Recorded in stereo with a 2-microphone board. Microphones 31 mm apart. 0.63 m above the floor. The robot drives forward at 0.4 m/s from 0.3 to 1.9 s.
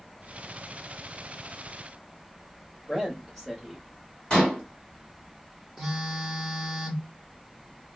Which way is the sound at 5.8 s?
10° right (ahead or behind).